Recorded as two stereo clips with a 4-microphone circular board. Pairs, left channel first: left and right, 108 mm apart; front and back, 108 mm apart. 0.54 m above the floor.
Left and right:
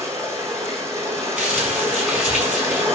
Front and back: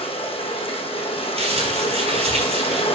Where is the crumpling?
170° right, 5 m.